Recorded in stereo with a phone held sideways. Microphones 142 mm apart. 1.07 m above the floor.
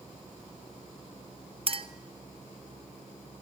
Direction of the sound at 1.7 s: 40° right (ahead or behind).